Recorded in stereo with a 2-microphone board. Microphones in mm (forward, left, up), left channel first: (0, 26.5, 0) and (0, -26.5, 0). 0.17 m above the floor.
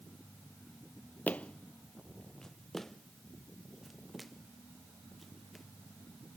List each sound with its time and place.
1.3 s footsteps: 30° left (ahead or behind); by 5.6 s centre (ahead or behind)